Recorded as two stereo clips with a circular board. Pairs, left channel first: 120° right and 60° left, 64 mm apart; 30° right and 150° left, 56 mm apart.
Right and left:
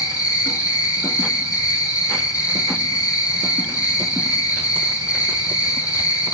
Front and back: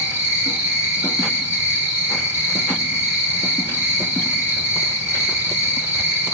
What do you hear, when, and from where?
0.0 s an insect: 150° right, 5.5 m